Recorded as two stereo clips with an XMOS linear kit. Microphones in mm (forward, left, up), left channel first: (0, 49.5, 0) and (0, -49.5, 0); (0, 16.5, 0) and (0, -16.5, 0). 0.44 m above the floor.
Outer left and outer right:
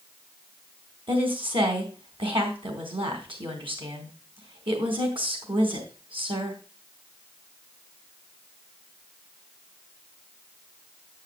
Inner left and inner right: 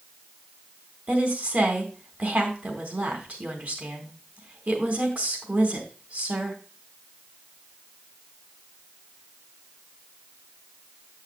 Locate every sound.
1.1 s a woman speaking: 60° right (ahead or behind), 3.5 m